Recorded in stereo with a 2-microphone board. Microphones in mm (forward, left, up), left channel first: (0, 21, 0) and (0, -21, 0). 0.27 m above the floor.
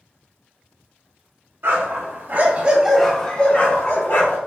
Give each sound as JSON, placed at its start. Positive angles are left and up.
{"t": 1.6, "sound": "a dog barking", "side_deg": -65, "distance_m": 0.9}